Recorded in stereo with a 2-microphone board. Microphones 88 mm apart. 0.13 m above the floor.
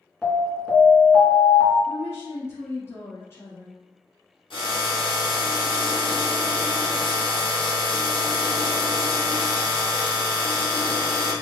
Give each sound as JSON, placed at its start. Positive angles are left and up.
{"t": 0.2, "sound": "an alarm", "side_deg": 5, "distance_m": 1.6}
{"t": 1.9, "sound": "a woman speaking", "side_deg": 30, "distance_m": 1.4}
{"t": 4.5, "sound": "a drill", "side_deg": 70, "distance_m": 1.6}